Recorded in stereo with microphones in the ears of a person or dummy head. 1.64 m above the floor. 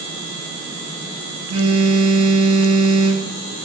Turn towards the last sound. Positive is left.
turn(degrees=-35)  # may be behind; listen again after turning